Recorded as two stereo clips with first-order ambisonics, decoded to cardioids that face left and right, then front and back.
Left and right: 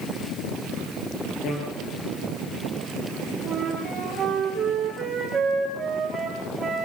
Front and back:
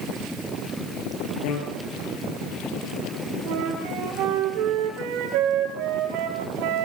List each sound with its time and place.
1.4 s a bicycle bell: 35° left, 8.5 m
3.5 s a flute: 165° right, 5 m